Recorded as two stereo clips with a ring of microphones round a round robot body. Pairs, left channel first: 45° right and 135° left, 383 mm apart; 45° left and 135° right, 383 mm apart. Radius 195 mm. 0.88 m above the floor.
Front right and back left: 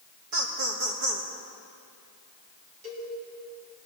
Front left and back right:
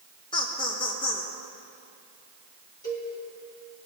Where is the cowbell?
125° left, 3.5 m.